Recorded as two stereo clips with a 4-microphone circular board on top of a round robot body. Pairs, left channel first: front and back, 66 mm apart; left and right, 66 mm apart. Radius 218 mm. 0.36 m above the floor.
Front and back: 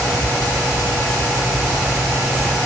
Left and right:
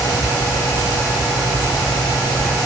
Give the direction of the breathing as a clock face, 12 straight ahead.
I don't hear breathing.